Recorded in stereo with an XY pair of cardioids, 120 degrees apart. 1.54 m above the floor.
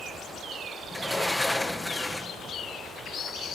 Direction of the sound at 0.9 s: 5° left.